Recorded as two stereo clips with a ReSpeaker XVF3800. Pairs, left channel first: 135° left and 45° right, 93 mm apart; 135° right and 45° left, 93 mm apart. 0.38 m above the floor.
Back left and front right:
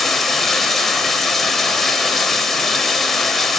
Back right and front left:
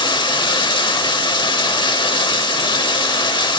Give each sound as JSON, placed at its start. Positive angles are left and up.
{"t": 0.0, "sound": "running water", "azimuth_deg": -140, "distance_m": 0.8}